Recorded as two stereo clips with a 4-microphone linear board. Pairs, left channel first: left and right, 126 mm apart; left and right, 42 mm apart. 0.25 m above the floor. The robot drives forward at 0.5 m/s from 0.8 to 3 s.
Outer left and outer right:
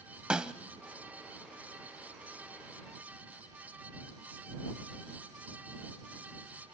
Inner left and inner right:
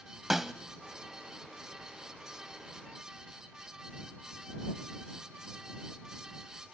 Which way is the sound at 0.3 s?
5° right (ahead or behind).